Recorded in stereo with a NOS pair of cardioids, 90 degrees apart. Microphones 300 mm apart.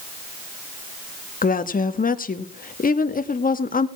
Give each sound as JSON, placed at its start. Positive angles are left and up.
{"t": 1.4, "sound": "a woman speaking", "azimuth_deg": 30, "distance_m": 1.9}